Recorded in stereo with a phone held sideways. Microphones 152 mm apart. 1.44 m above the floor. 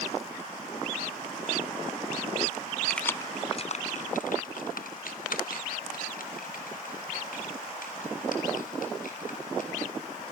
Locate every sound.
2.9 s keys jangling: 5° left (ahead or behind), 0.5 m; by 9.7 s 70° left (ahead or behind), 3.5 m